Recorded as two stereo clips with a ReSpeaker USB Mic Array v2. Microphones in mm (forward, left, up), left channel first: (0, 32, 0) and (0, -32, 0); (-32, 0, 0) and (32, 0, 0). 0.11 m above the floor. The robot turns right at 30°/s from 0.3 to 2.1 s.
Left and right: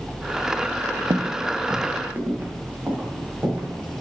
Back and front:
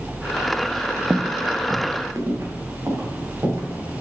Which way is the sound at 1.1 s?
65° right.